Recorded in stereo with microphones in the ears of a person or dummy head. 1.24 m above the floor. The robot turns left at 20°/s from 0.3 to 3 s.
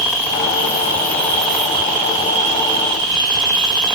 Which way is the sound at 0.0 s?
20° left.